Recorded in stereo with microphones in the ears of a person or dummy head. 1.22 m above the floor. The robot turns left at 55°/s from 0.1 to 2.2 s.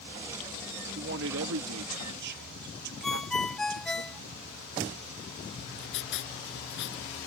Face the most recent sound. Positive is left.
turn(degrees=70)  # may be behind; listen again after turning